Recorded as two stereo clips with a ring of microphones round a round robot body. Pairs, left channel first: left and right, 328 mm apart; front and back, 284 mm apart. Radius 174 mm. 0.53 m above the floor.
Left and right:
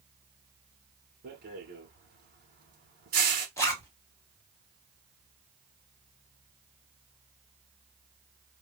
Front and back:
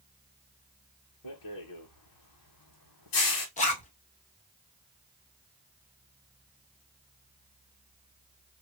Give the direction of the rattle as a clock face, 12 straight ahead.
1 o'clock.